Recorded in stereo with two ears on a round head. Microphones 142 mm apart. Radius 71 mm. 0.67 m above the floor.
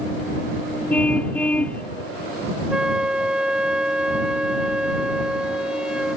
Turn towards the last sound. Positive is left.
turn(degrees=-5)  # may be behind; listen again after turning